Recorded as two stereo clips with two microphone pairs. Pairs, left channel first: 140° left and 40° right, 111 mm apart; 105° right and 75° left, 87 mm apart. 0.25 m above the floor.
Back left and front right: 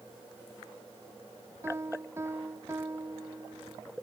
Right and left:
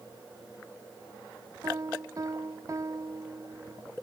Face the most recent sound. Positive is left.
turn(degrees=25)